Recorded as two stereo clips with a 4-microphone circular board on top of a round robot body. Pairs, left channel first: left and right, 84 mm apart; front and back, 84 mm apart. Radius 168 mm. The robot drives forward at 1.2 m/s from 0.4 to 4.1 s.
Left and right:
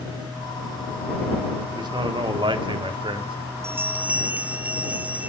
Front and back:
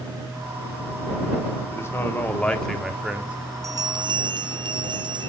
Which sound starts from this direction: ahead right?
A man speaking, at 1.7 s.